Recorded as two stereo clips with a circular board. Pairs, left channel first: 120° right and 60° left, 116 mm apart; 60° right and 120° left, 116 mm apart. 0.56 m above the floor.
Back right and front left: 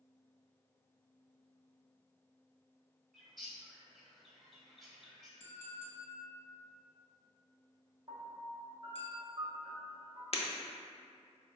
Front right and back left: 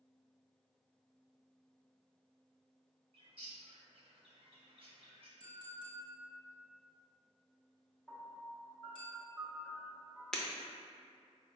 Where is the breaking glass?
145° right, 0.7 m.